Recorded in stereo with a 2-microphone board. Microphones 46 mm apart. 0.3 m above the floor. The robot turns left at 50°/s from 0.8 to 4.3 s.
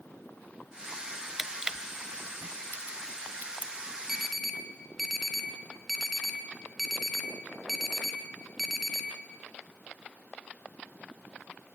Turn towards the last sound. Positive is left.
turn(degrees=0)  # may be behind; listen again after turning